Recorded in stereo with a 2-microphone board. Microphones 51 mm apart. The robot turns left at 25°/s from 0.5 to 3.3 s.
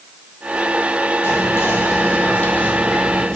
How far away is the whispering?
About 0.6 m.